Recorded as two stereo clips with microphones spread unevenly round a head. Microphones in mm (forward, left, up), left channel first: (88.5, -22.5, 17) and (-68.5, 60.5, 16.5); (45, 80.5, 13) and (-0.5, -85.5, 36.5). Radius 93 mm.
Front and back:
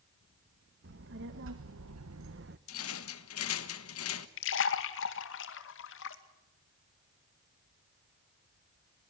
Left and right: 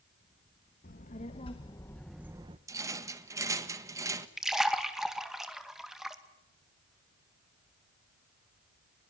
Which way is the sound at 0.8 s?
125° left.